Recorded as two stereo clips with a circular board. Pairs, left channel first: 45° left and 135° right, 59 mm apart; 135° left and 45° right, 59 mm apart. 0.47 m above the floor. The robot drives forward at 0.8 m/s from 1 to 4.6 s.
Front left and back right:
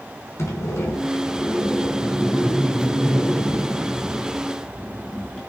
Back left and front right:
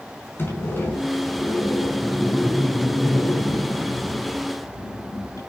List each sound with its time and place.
0.4 s a sliding door: 85° left, 4 m; by 5.4 s 120° left, 4.5 m